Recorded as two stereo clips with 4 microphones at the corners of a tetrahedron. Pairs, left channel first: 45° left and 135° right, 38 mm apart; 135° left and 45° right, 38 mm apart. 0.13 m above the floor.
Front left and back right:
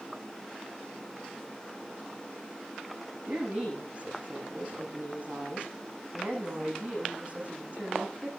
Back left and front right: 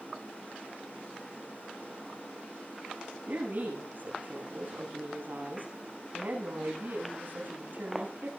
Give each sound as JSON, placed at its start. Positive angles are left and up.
{"t": 3.3, "sound": "a woman speaking", "azimuth_deg": -80, "distance_m": 10.0}